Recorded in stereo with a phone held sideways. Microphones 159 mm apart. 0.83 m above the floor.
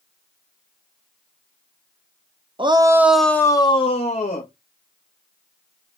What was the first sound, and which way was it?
A shout, 30° right (ahead or behind).